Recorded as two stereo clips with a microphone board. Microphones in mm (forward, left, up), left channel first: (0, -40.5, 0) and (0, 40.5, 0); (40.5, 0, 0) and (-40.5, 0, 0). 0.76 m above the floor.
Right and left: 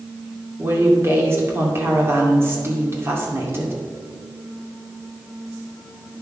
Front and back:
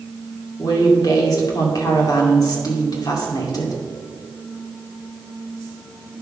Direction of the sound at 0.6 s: 35° left.